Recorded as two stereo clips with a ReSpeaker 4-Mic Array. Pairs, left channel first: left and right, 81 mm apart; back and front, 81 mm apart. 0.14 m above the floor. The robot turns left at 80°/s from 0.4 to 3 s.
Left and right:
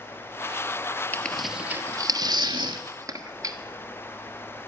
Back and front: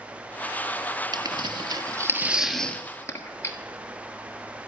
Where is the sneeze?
No sneeze in this recording.